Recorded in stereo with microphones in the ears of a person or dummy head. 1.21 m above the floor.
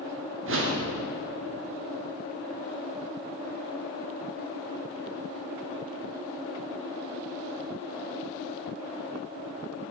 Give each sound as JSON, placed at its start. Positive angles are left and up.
{"t": 0.5, "sound": "a whoosh", "side_deg": -60, "distance_m": 0.6}